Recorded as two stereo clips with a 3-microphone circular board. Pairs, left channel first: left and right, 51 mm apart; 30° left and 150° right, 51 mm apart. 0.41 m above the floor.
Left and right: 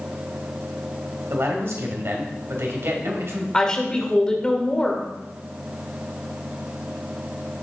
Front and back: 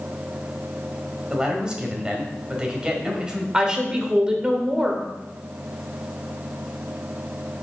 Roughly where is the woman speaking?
Behind left.